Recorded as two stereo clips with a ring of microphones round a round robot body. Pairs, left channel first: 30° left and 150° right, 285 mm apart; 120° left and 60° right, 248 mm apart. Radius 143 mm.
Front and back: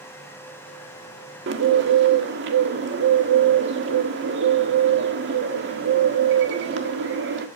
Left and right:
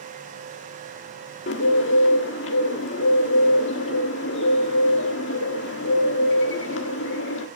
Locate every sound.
1.5 s a bird: 165° left, 1.6 m